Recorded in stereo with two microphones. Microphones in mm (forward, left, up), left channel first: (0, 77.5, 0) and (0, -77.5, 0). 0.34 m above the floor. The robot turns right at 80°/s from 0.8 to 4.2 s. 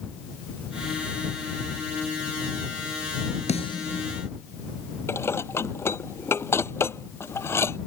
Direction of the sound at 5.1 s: 15° left (ahead or behind).